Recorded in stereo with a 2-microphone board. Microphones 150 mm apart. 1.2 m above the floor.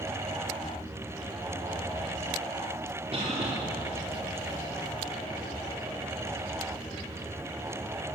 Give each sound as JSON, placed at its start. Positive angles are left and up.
{"t": 3.1, "sound": "a cough", "side_deg": -45, "distance_m": 3.0}